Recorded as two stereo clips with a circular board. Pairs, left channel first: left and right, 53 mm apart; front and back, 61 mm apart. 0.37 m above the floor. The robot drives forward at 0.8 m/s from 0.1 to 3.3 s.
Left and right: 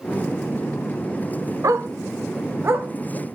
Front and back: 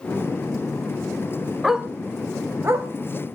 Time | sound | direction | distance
1.6 | a dog barking | 95° right | 1.2 m